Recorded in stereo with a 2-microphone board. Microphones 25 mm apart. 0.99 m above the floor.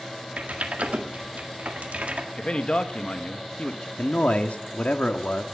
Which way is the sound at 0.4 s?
80° right.